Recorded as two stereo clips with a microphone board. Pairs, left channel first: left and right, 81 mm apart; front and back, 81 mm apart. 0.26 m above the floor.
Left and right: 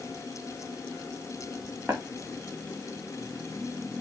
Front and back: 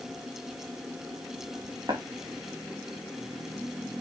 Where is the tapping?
160° right, 3 m.